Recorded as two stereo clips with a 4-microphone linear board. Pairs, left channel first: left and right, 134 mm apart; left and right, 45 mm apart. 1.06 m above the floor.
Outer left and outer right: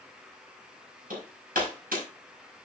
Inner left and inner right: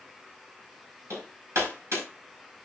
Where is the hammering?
90° right, 5 m.